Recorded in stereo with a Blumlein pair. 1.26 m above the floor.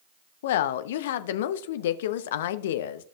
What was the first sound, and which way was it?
A woman speaking, 55° left.